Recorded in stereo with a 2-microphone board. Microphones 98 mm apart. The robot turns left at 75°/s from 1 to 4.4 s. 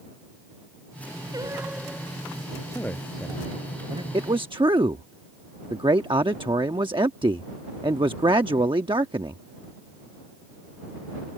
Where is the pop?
No pop in this recording.